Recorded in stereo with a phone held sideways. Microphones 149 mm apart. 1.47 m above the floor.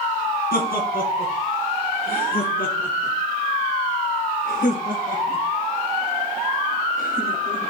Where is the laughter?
85° left, 4.5 m.